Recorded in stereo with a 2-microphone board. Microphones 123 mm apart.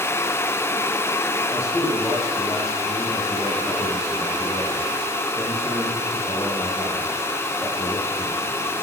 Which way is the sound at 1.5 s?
25° left (ahead or behind).